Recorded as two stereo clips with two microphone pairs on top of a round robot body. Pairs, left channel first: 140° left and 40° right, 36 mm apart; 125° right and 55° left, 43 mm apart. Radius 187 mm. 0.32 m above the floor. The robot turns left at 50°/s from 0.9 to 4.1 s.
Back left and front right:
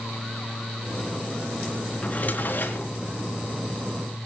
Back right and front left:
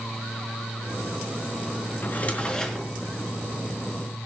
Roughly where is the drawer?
Behind.